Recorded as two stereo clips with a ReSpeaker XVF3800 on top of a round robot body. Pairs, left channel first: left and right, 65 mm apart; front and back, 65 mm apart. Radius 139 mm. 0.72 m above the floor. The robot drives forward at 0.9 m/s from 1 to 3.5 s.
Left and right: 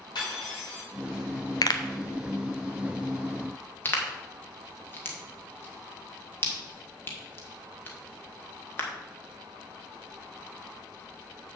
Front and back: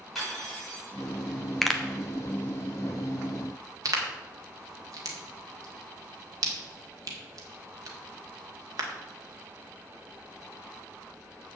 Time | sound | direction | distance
0.1 | cutlery clinking | 90° left | 5.5 m
1.6 | a pop | 85° left | 1.1 m